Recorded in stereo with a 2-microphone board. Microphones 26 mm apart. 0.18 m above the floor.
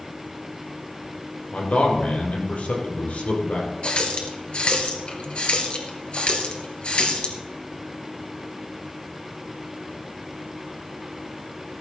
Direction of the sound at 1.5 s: 55° left (ahead or behind).